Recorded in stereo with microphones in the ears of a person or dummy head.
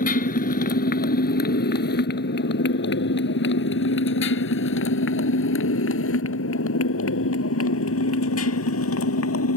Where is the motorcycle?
50° left (ahead or behind); by 9.6 s 85° left.